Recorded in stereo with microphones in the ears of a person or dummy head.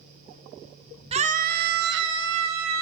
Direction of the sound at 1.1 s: 35° right (ahead or behind).